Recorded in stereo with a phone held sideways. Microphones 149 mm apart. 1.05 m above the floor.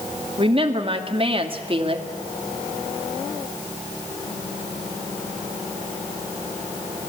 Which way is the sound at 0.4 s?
40° right (ahead or behind).